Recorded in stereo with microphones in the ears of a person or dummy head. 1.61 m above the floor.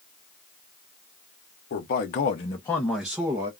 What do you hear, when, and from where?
1.7 s a man speaking: 50° left (ahead or behind), 0.8 m; by 3.5 s 15° right (ahead or behind), 0.8 m